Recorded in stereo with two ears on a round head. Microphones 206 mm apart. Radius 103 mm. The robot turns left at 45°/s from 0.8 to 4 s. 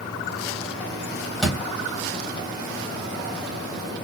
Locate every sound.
1.4 s a door slam: 5° left (ahead or behind), 2.5 m; by 1.7 s 10° right (ahead or behind), 2.5 m